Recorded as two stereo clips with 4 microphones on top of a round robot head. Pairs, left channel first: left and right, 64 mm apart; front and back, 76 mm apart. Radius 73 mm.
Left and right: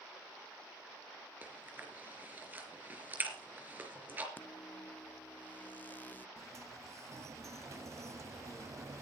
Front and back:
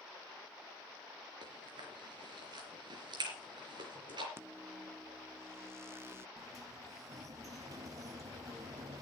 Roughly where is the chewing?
Behind right.